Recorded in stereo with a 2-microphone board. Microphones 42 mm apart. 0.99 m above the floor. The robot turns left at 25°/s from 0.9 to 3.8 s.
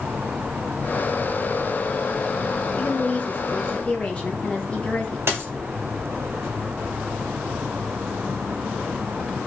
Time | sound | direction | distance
2.7 | a woman speaking | 50° left (ahead or behind) | 0.7 m
5.3 | a dropped coin | 70° right (ahead or behind) | 1.4 m